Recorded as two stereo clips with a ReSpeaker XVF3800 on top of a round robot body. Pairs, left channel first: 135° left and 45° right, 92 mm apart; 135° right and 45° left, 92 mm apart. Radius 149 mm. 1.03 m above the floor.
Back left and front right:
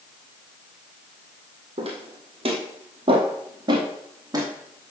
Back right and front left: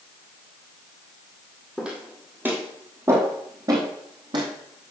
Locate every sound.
1.8 s footsteps: 35° right, 2 m; by 4.9 s 15° left, 2 m